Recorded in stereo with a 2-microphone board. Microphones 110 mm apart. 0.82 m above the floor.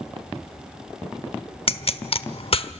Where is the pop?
60° left (ahead or behind), 0.9 m.